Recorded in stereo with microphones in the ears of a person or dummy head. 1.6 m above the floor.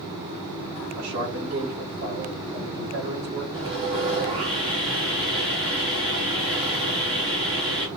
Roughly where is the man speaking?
Right.